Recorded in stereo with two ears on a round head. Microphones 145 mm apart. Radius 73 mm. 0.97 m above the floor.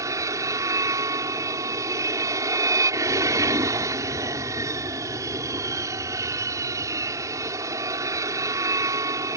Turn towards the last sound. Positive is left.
turn(degrees=-20)  # may be behind; listen again after turning